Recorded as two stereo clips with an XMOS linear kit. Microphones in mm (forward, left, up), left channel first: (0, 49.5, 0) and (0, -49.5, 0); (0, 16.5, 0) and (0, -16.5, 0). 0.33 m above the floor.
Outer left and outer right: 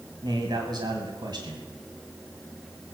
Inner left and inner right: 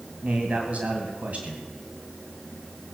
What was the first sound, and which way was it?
A man speaking, 45° right (ahead or behind).